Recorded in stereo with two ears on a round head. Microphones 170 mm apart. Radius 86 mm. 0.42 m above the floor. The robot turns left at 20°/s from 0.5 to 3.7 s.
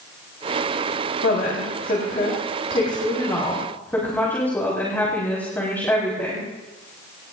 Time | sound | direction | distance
1.2 | a woman speaking | 60° left | 5.5 m